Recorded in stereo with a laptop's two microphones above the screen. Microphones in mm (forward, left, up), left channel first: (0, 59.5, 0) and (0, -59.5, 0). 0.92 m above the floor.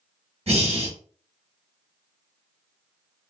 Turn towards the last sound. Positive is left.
turn(degrees=-55)  # may be behind; listen again after turning